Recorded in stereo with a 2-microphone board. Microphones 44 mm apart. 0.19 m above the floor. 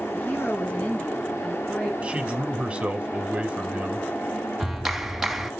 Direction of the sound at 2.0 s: 25° right (ahead or behind).